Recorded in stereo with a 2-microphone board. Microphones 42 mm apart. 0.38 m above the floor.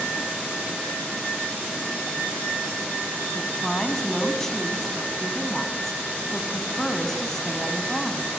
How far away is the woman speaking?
About 2.5 m.